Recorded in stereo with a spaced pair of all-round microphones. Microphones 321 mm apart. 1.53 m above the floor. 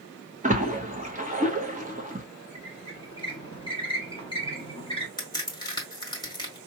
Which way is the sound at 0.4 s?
25° right (ahead or behind).